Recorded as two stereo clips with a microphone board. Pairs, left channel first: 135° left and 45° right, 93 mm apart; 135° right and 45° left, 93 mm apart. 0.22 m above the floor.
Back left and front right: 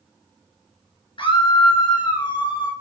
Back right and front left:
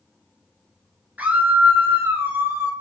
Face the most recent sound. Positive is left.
turn(degrees=105)